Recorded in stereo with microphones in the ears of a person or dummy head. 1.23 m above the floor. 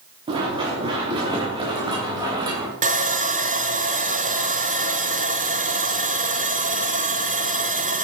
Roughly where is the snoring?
No snoring in this recording.